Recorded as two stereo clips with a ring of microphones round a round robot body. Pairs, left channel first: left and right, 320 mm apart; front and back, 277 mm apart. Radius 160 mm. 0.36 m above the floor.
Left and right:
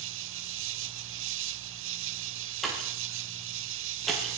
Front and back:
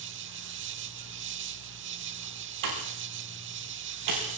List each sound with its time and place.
0.0 s an insect: 135° right, 0.8 m
2.6 s a pop: straight behind, 9.5 m